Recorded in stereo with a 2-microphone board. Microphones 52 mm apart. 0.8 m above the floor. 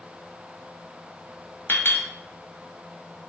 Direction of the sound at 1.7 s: 50° left (ahead or behind).